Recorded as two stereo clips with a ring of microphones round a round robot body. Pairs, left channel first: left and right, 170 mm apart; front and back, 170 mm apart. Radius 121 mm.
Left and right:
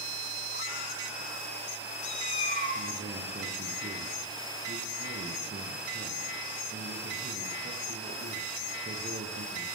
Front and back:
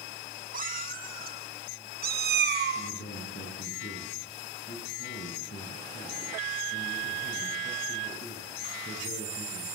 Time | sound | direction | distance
0.5 | a cat meowing | 145° left | 5.5 m
2.8 | a man speaking | 50° right | 9 m